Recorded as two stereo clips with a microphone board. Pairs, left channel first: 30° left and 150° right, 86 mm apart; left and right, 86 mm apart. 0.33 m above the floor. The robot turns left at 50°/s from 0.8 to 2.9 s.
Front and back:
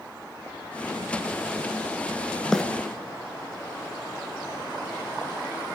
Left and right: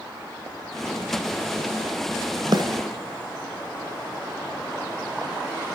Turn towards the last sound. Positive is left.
turn(degrees=-75)